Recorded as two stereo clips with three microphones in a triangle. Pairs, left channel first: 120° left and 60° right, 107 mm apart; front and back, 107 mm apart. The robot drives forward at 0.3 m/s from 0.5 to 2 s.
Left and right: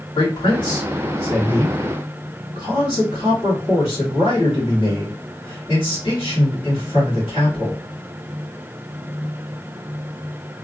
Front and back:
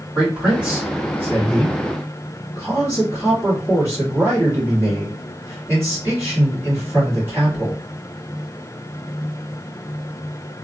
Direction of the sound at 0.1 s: 105° left.